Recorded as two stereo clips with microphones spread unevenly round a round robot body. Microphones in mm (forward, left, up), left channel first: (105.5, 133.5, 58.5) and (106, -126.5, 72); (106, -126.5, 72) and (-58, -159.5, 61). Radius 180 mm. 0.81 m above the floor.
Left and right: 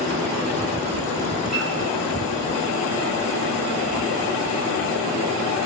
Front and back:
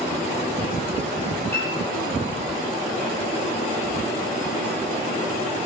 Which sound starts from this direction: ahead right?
A piano, at 1.5 s.